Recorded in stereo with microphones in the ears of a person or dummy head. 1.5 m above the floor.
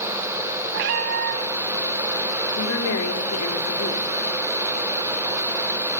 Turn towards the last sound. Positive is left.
turn(degrees=85)